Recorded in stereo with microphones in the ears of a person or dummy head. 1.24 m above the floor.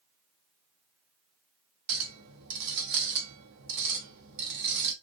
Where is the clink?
60° right (ahead or behind), 0.9 m.